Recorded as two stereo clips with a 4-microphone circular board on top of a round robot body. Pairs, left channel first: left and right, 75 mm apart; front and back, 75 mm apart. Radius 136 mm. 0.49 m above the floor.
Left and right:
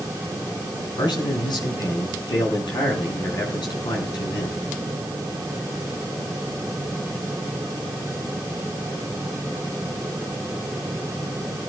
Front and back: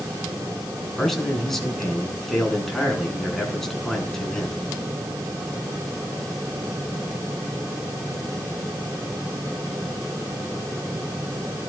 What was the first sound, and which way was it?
A man speaking, 85° left.